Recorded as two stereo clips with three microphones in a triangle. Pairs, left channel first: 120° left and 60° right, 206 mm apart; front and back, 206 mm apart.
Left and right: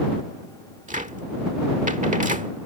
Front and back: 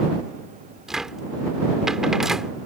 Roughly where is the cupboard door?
Right.